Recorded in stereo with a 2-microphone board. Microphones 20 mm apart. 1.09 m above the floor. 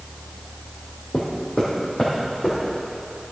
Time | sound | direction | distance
1.1 | footsteps | 65° left (ahead or behind) | 2.5 m